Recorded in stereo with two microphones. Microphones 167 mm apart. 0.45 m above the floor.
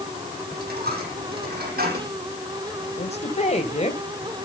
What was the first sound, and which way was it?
A dropped coin, 60° right (ahead or behind).